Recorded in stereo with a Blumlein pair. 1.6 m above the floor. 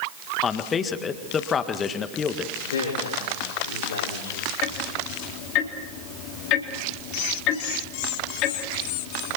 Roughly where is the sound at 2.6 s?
Ahead left.